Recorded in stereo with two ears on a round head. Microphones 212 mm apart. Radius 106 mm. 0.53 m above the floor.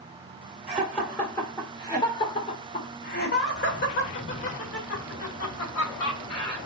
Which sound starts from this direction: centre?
Laughter, at 0.7 s.